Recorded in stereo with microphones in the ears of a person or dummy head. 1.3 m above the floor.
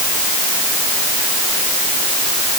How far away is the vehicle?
No vehicle in this recording.